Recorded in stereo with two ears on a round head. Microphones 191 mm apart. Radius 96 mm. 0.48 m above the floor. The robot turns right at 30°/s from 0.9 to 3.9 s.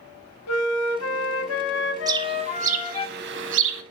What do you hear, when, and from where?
0.5 s a flute: 90° left, 1.1 m; by 3.1 s 155° left, 1.1 m
2.1 s a bird: 20° right (ahead or behind), 0.9 m; by 3.8 s 70° right (ahead or behind), 0.9 m